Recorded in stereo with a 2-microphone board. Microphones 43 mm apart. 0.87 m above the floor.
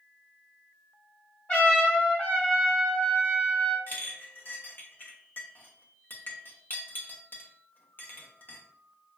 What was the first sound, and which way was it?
A trumpet, 45° left (ahead or behind).